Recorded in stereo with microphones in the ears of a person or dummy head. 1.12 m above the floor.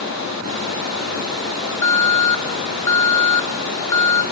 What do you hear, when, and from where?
0.0 s running water: 80° left, 9.5 m
1.8 s an alarm: 20° left (ahead or behind), 0.9 m